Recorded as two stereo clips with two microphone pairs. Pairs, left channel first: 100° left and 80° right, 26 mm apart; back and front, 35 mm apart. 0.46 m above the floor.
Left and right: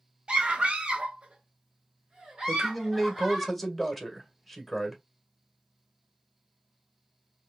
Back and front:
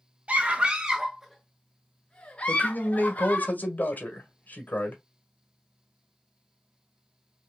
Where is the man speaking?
160° right, 1.8 m.